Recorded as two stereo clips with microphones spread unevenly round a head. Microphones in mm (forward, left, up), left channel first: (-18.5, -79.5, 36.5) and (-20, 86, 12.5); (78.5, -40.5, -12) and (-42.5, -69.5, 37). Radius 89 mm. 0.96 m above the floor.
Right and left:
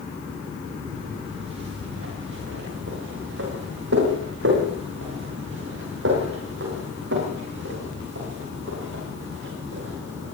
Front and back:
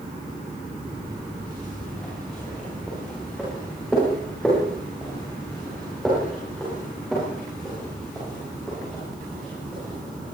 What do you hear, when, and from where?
0.9 s footsteps: 100° left, 9 m